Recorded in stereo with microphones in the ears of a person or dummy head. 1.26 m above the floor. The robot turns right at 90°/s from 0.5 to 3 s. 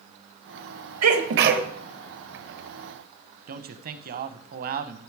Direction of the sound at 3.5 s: 45° right (ahead or behind).